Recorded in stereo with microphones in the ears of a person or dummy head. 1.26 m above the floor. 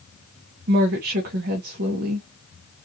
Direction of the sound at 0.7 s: 45° right (ahead or behind).